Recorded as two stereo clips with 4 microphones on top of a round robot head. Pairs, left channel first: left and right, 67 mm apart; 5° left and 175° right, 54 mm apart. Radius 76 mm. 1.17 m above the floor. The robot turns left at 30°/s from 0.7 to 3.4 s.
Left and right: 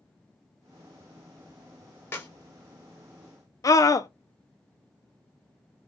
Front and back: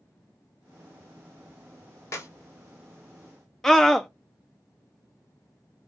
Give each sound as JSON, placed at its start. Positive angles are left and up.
{"t": 2.1, "sound": "a clap", "azimuth_deg": 35, "distance_m": 2.0}
{"t": 3.6, "sound": "a scream", "azimuth_deg": 85, "distance_m": 0.5}